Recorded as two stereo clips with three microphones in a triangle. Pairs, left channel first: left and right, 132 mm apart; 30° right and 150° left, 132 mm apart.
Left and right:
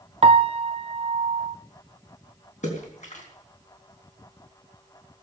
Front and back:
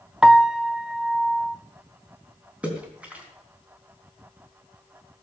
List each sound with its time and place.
0.2 s a piano: 125° right, 0.7 m
2.6 s a splash: 70° left, 3.5 m